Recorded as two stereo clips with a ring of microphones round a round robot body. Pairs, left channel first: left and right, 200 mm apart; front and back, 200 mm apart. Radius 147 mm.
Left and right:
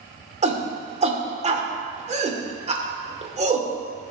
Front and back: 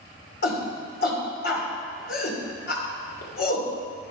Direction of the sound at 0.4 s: 40° right.